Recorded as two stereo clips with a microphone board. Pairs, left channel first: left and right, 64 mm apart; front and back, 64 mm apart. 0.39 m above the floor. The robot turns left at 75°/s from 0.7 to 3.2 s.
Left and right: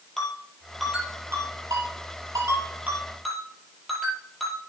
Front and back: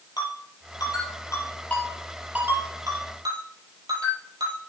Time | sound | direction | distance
0.2 | a ringtone | 5° left | 5 m